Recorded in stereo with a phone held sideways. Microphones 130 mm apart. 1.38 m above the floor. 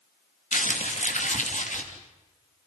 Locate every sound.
0.5 s crumpling: 70° left (ahead or behind), 3 m